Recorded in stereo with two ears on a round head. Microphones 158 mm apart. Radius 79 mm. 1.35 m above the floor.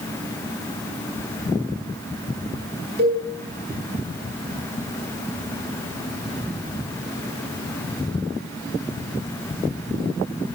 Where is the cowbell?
55° right (ahead or behind), 10 m.